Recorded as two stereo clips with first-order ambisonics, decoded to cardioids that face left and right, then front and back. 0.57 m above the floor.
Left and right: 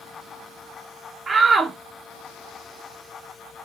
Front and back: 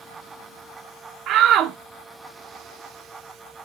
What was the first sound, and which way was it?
A shout, 155° right.